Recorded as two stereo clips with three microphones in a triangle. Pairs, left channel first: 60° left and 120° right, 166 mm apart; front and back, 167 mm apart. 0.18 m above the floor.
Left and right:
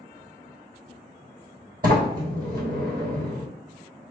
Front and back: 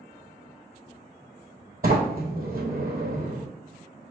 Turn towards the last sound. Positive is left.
turn(degrees=-145)